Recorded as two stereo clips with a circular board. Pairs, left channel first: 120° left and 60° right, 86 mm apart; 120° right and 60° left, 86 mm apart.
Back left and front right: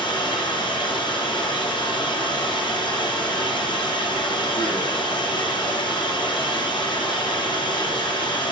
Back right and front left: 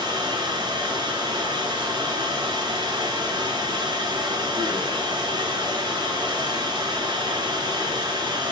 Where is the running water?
95° left, 4 m.